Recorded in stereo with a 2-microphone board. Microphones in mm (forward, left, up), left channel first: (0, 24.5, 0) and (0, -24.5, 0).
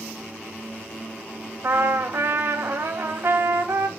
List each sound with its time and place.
1.6 s a trumpet: 55° right (ahead or behind), 0.9 m